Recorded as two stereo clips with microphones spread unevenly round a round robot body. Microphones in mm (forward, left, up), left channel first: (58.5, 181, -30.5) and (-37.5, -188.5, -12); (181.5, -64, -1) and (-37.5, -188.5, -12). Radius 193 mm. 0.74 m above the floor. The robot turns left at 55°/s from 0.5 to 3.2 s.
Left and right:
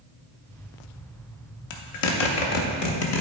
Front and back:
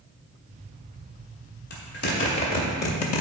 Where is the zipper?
95° left, 1.0 m; by 3.2 s 10° left, 1.0 m.